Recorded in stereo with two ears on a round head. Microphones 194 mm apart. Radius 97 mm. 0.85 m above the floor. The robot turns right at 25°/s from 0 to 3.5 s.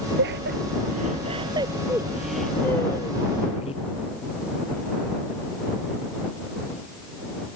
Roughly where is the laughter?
Right.